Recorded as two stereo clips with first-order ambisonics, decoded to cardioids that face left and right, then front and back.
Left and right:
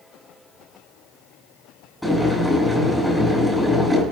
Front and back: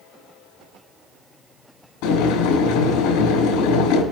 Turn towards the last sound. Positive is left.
turn(degrees=0)